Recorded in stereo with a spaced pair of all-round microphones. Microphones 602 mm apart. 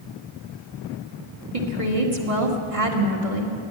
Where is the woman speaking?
65° right (ahead or behind), 2 m.